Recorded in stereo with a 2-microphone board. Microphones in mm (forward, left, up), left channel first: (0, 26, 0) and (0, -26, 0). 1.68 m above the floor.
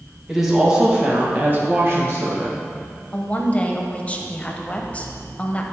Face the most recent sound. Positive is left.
turn(degrees=25)  # may be behind; listen again after turning